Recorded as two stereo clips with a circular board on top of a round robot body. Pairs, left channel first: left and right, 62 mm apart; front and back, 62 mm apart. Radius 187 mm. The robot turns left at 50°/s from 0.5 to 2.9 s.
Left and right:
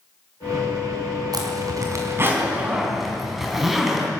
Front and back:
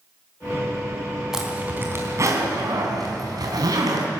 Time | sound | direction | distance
1.3 | a zipper | 100° right | 4 m